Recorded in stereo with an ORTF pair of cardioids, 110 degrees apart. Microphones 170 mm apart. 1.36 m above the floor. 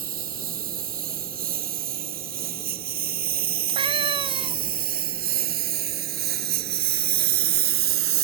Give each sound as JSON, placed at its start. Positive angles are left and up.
{"t": 0.0, "sound": "a lawn mower", "azimuth_deg": -60}
{"t": 3.7, "sound": "a cat meowing", "azimuth_deg": -30}